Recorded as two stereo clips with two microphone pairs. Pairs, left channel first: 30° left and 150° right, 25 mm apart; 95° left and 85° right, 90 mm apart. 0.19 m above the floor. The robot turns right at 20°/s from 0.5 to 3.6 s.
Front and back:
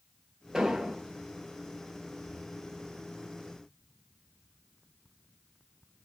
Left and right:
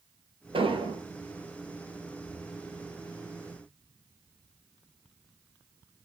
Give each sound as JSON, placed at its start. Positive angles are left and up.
{"t": 0.5, "sound": "an explosion", "azimuth_deg": -85, "distance_m": 1.0}